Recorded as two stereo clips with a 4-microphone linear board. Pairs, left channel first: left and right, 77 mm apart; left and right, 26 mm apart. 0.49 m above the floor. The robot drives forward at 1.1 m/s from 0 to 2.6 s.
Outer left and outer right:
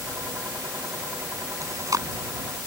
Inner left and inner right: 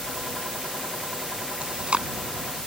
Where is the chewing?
45° right (ahead or behind); by 2.1 s 50° right (ahead or behind).